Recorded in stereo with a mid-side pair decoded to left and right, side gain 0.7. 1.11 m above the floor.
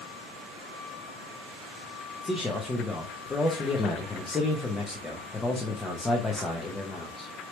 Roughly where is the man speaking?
Ahead.